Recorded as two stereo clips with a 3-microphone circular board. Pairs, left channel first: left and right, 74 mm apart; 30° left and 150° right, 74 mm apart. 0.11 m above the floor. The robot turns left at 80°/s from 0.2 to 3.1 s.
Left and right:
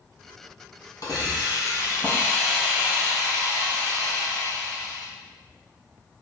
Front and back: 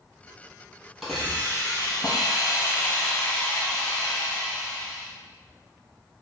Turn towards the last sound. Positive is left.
turn(degrees=-50)